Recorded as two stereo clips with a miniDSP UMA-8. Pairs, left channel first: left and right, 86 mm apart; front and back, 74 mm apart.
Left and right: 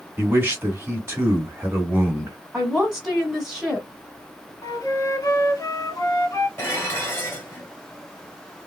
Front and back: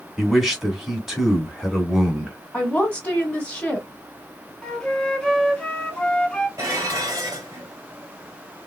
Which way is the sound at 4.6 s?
75° left.